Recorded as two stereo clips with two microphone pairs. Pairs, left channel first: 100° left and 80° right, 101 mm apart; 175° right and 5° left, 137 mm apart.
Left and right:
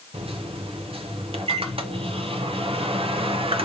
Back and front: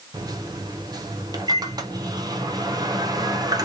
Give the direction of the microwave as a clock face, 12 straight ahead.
2 o'clock.